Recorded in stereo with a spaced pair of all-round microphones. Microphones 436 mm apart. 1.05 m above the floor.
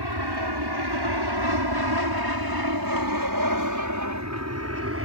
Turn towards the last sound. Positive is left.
turn(degrees=-30)  # may be behind; listen again after turning